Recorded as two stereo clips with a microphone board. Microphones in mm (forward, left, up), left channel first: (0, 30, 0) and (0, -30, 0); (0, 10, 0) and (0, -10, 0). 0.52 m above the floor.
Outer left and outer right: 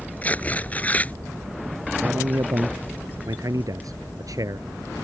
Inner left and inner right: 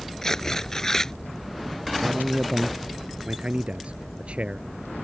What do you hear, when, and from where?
0.2 s tearing paper: 25° left (ahead or behind)
2.0 s a man speaking: 70° right (ahead or behind)